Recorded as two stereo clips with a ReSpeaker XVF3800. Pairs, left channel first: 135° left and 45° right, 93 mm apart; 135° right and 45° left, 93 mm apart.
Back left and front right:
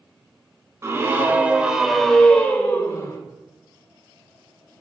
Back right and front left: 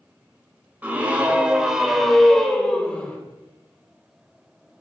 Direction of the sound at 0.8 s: 15° right.